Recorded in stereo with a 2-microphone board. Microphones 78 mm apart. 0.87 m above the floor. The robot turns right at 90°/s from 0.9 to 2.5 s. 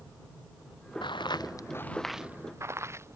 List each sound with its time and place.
1.0 s footsteps: 80° left; by 3.2 s 35° right (ahead or behind)